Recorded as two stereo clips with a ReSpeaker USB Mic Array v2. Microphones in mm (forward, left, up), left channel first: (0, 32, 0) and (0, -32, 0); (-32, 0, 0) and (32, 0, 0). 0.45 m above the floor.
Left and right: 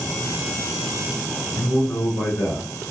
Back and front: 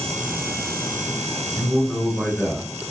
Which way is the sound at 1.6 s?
105° left.